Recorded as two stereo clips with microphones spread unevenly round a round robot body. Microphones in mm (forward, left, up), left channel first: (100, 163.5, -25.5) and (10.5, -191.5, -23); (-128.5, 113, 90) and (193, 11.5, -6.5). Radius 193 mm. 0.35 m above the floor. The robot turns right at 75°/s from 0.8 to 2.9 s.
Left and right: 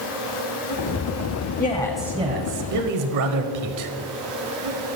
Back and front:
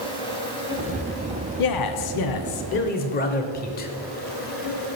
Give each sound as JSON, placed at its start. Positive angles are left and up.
{"t": 0.0, "sound": "an insect", "azimuth_deg": 75, "distance_m": 3.5}
{"t": 1.6, "sound": "a man speaking", "azimuth_deg": 135, "distance_m": 1.2}